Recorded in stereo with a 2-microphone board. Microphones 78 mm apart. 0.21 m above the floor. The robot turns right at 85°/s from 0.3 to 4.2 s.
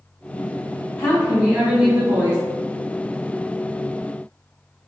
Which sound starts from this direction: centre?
A woman speaking, at 1.0 s.